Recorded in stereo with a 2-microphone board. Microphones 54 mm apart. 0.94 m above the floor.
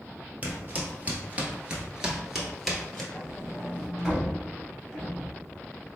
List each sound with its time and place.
0.4 s footsteps: 30° right (ahead or behind), 1.3 m; by 3.0 s 5° left (ahead or behind), 1.1 m
3.1 s a sliding door: 5° right (ahead or behind), 1.0 m